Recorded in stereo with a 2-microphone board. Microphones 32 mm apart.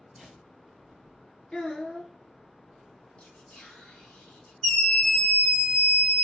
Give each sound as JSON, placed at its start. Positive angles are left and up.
{"t": 0.1, "sound": "a whoosh", "side_deg": 10, "distance_m": 2.5}
{"t": 1.5, "sound": "a child speaking", "side_deg": 30, "distance_m": 1.5}
{"t": 3.2, "sound": "whispering", "side_deg": 25, "distance_m": 1.1}
{"t": 4.6, "sound": "a scream", "side_deg": 15, "distance_m": 1.2}